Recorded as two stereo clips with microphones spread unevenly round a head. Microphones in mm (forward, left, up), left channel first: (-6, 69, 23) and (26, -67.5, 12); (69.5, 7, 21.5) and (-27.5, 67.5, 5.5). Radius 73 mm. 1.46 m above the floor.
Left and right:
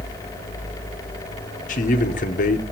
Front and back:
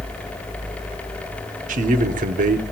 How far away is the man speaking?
About 0.8 m.